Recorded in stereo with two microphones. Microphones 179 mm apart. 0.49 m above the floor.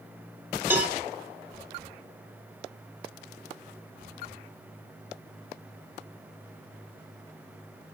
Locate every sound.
0.7 s a cowbell: 10° right (ahead or behind), 0.9 m